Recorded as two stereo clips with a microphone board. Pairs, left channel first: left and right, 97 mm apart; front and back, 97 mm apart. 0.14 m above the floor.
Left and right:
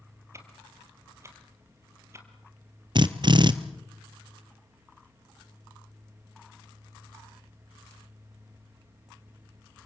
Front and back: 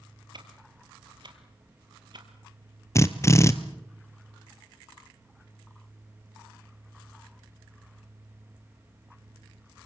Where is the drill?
60° right, 1.3 m.